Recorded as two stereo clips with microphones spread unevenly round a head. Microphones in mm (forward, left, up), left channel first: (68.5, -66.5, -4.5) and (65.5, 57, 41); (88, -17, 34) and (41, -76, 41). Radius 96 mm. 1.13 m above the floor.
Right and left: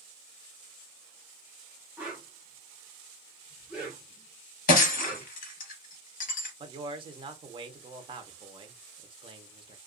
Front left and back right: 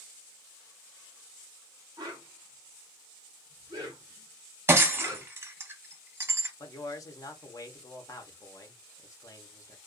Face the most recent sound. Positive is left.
turn(degrees=35)